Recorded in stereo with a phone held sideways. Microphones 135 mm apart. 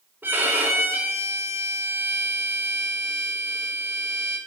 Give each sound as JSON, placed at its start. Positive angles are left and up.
{"t": 0.2, "sound": "a violin", "side_deg": -15, "distance_m": 3.5}